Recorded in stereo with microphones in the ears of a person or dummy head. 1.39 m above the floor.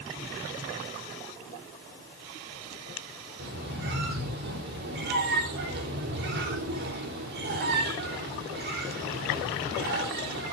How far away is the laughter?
No laughter in this recording.